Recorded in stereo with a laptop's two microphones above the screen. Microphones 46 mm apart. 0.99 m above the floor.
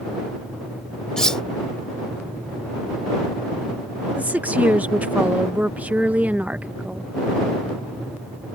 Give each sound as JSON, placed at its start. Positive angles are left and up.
{"t": 1.2, "sound": "cutlery clinking", "side_deg": 15}
{"t": 4.2, "sound": "a woman speaking", "side_deg": -35}